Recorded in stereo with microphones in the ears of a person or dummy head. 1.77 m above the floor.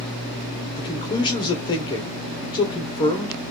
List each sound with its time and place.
0.8 s a man speaking: 25° left (ahead or behind), 1.0 m